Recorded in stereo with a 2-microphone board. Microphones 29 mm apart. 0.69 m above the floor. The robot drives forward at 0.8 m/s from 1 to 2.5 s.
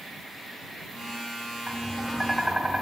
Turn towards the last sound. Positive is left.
turn(degrees=-15)  # may be behind; listen again after turning